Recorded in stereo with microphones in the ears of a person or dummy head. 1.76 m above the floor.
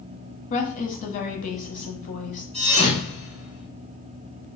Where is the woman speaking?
50° left (ahead or behind), 1.1 m.